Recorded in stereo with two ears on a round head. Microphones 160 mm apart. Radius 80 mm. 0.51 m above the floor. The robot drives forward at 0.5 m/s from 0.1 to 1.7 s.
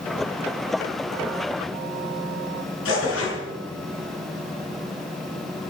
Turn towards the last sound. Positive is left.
turn(degrees=85)